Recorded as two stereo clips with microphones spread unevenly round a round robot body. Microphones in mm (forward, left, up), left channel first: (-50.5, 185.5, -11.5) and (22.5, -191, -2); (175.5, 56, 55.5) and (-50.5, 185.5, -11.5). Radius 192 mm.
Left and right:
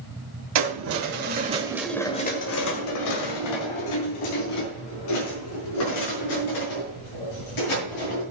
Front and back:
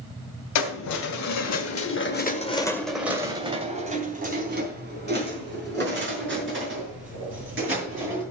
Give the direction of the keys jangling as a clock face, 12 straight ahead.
1 o'clock.